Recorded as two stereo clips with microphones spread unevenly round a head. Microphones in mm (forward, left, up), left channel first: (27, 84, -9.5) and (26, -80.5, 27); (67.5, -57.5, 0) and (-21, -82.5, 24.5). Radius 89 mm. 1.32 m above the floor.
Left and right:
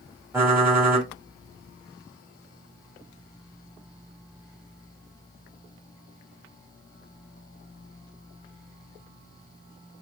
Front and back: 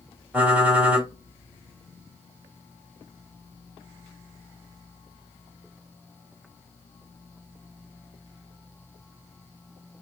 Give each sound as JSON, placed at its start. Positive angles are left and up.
{"t": 0.3, "sound": "typing on a keyboard", "azimuth_deg": -135, "distance_m": 1.2}